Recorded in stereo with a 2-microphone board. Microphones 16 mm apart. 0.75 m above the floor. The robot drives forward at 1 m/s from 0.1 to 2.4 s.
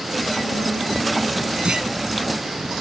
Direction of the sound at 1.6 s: 80° right.